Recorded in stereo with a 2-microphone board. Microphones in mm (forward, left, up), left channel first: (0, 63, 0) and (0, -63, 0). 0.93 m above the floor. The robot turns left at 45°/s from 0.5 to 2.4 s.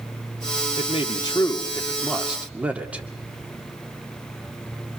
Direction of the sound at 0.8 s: 60° left.